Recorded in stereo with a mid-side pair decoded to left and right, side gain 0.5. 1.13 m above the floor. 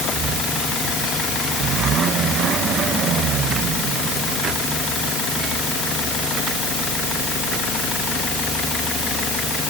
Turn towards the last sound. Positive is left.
No sound to turn to.